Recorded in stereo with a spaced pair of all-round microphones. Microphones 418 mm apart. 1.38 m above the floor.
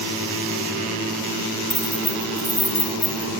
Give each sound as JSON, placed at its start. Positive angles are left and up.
{"t": 1.7, "sound": "keys jangling", "side_deg": 65, "distance_m": 2.5}